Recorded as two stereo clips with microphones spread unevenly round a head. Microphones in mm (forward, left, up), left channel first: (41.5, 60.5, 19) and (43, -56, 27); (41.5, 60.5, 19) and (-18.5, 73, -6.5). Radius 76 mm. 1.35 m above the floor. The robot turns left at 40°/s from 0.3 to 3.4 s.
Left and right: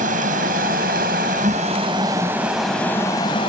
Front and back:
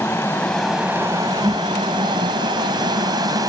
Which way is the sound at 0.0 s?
85° right.